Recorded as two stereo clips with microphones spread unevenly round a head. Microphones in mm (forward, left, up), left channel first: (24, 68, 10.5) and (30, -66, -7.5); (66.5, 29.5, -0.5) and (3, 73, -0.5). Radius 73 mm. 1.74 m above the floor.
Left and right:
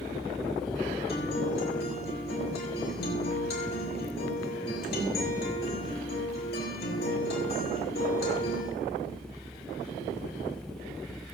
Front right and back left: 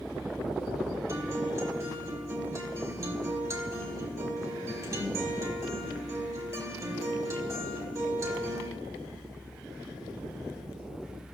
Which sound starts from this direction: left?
A guitar, at 1.1 s.